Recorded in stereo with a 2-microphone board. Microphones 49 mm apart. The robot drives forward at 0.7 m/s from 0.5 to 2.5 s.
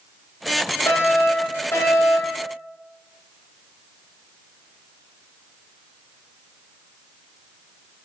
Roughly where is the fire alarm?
Left.